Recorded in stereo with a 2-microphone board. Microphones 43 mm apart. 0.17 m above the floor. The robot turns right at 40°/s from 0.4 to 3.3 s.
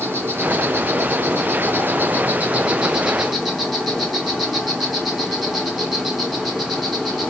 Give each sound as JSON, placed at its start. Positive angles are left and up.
{"t": 0.0, "sound": "an insect", "azimuth_deg": -115, "distance_m": 0.9}